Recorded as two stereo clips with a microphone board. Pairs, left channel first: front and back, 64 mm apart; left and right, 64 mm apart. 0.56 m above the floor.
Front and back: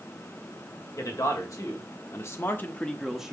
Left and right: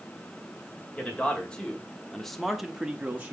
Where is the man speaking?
20° left, 2.5 m; by 3.3 s 120° right, 1.0 m.